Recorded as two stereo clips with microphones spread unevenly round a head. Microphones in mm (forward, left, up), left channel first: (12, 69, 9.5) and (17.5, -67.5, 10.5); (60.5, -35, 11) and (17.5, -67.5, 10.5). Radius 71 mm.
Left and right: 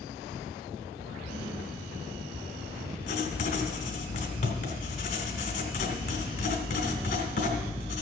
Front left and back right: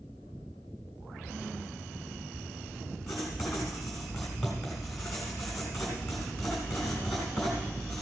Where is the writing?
125° left, 1.9 m.